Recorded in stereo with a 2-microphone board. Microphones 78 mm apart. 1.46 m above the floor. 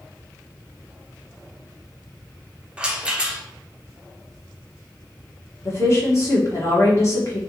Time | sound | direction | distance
2.8 | a rattle | 10° right (ahead or behind) | 0.6 m
5.7 | a woman speaking | 40° left (ahead or behind) | 1.2 m